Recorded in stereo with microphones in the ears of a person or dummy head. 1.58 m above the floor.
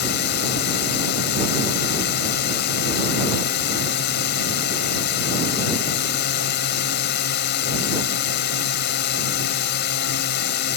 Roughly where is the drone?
Left.